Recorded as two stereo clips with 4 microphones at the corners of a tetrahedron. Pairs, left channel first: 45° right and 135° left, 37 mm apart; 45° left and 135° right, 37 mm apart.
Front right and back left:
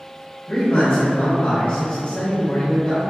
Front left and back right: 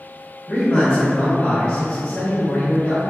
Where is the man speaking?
10° right, 0.9 m.